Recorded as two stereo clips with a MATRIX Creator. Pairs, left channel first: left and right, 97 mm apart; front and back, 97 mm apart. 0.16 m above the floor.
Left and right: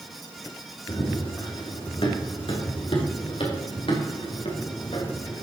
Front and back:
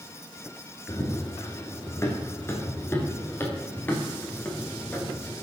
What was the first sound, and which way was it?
Running footsteps, 55° left.